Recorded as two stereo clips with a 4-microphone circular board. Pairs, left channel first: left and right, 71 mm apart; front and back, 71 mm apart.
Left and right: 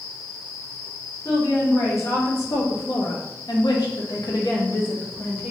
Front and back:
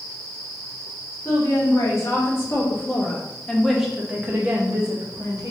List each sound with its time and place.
1.2 s a woman speaking: 40° left, 1.8 m; by 5.5 s 155° left, 1.1 m